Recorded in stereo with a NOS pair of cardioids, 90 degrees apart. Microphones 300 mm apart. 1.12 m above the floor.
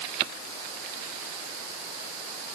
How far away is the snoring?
No snoring in this recording.